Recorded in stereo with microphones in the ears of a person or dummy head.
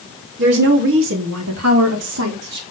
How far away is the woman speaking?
About 3.5 m.